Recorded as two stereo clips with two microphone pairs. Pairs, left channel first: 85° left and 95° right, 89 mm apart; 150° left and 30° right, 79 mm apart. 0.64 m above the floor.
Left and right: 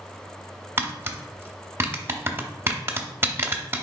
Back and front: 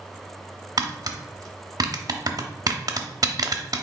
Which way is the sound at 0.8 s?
40° right.